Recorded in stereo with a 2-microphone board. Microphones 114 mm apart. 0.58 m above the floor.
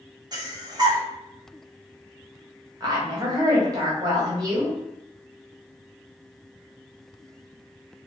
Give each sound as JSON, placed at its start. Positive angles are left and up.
{"t": 0.3, "sound": "breathing", "side_deg": -35, "distance_m": 0.6}
{"t": 2.8, "sound": "a woman speaking", "side_deg": -30, "distance_m": 0.9}